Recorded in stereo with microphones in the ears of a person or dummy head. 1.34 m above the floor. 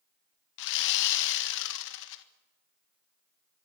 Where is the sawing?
70° left (ahead or behind), 1.6 m.